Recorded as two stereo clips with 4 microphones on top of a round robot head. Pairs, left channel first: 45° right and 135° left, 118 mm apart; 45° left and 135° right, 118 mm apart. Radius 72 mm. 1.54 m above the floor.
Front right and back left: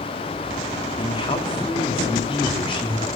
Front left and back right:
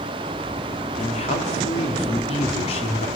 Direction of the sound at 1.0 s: 5° left.